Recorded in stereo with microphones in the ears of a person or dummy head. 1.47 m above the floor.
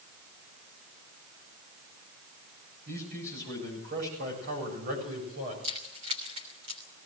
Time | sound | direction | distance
2.9 | a man speaking | 60° right (ahead or behind) | 8 m
5.6 | keys jangling | 35° right (ahead or behind) | 3 m